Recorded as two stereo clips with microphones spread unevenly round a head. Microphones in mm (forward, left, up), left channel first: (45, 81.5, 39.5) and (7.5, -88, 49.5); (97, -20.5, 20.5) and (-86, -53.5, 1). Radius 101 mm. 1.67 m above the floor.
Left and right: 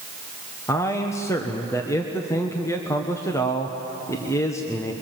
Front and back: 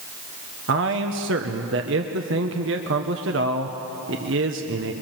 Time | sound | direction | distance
0.7 | a man speaking | 155° left | 1.2 m